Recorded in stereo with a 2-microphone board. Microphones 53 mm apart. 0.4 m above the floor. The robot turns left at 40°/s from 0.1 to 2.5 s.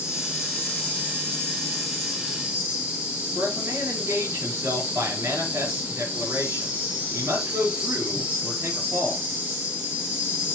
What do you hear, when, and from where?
0.0 s an insect: 70° left, 4 m; by 10.6 s 25° right, 4 m
3.4 s a man speaking: 55° right (ahead or behind), 6.5 m